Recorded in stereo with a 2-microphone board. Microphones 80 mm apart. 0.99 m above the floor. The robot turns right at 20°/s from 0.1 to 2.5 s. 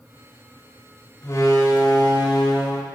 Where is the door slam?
35° left (ahead or behind), 1.1 m; by 2.9 s 60° left (ahead or behind), 1.1 m.